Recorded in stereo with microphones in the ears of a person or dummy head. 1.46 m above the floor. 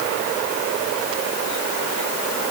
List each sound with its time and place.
Only background noise.